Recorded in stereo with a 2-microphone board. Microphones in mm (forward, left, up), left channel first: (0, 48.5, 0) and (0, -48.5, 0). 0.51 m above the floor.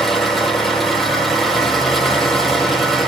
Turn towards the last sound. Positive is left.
turn(degrees=0)  # may be behind; listen again after turning